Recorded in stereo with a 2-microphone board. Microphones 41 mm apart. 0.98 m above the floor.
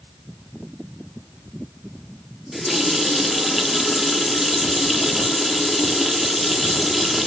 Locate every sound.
2.5 s a running tap: 5° right (ahead or behind), 1.1 m